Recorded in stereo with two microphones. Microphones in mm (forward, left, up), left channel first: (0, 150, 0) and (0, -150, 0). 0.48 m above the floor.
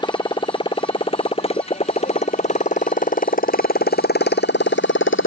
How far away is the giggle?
No giggle in this recording.